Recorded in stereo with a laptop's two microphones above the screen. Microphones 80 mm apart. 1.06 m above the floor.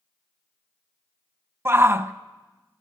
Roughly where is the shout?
Right.